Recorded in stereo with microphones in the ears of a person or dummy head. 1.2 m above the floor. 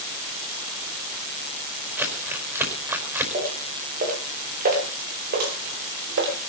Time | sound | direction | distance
2.0 | crumpling | 15° right (ahead or behind) | 5 m
3.3 | footsteps | 40° right (ahead or behind) | 7.5 m